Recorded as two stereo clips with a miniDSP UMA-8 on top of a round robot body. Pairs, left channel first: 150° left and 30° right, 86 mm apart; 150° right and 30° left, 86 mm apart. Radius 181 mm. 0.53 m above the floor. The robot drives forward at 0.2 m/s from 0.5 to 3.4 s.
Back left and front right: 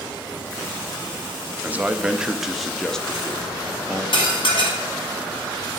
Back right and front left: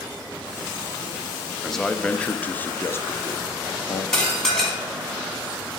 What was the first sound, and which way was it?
A man speaking, 65° right.